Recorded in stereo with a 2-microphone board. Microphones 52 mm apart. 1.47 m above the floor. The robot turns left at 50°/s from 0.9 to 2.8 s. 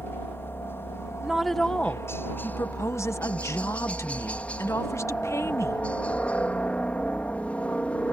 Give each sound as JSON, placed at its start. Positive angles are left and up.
{"t": 0.0, "sound": "a helicopter", "azimuth_deg": 125}
{"t": 1.2, "sound": "a woman speaking", "azimuth_deg": -170}